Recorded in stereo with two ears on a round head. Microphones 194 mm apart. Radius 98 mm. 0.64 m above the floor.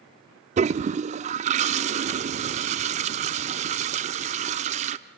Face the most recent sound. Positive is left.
turn(degrees=-30)  # may be behind; listen again after turning